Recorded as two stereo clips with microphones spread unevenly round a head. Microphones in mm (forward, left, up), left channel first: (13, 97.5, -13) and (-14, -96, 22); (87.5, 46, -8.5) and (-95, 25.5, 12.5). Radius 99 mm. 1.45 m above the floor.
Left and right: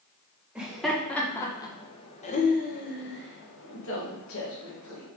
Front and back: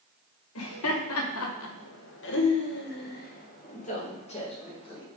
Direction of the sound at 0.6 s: 15° right.